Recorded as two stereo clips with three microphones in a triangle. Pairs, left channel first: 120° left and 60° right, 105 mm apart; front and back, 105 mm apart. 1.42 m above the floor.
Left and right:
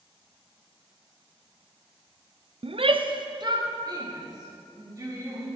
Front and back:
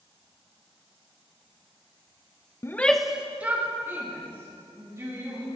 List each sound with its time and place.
2.6 s a shout: 60° right, 0.5 m; by 5.5 s 115° right, 3.5 m